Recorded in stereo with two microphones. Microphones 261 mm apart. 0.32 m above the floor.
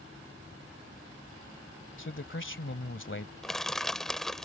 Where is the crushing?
Centre (ahead or behind).